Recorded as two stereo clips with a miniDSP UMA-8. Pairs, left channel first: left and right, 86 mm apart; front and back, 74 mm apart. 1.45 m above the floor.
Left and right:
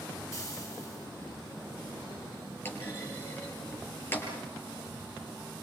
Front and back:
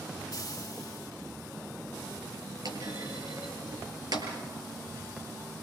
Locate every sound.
0.3 s frying: 35° left, 1.8 m
2.6 s a clunk: 155° left, 6 m